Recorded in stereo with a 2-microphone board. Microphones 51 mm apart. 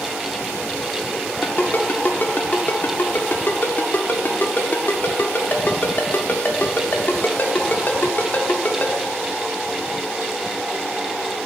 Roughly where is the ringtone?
Left.